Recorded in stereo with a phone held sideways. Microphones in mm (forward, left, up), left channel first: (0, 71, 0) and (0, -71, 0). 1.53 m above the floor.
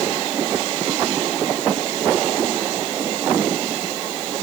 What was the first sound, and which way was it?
Only background noise.